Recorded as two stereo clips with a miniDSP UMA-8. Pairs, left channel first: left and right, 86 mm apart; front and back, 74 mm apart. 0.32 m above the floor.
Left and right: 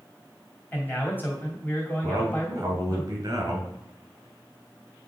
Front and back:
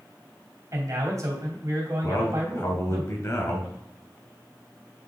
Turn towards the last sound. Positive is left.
turn(degrees=-45)